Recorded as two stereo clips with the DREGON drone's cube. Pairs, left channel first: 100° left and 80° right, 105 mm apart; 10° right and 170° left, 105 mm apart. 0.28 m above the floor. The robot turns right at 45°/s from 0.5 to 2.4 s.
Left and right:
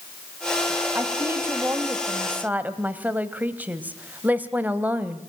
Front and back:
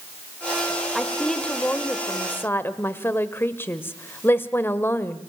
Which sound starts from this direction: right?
A woman speaking, at 0.9 s.